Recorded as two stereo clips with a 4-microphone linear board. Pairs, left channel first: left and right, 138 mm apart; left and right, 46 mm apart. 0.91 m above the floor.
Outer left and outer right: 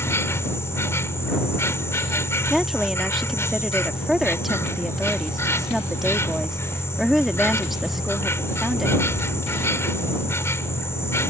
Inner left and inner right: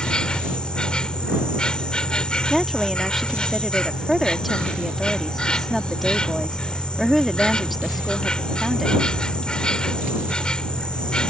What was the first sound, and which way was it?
An insect, 20° left (ahead or behind).